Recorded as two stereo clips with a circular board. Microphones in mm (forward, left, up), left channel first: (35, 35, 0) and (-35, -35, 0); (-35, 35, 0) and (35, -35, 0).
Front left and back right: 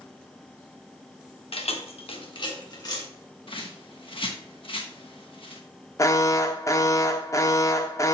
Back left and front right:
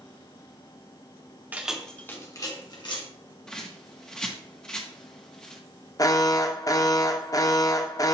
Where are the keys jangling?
30° left, 1.0 m; by 3.0 s 95° left, 1.9 m.